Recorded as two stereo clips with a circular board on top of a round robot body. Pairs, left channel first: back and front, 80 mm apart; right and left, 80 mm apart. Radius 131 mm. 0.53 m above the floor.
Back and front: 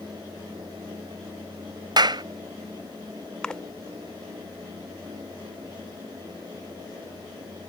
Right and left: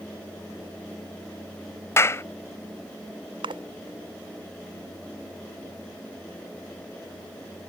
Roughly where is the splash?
Left.